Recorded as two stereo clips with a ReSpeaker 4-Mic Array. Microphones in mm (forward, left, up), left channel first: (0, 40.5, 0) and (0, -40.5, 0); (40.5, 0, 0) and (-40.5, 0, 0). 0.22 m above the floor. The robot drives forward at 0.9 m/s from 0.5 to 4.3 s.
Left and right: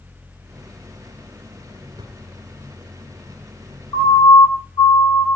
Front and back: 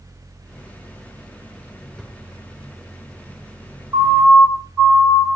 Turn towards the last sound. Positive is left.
turn(degrees=100)